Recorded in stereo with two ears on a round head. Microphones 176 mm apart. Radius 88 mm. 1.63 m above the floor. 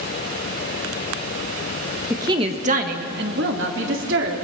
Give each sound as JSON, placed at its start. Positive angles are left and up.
{"t": 2.1, "sound": "a woman speaking", "side_deg": -15, "distance_m": 1.8}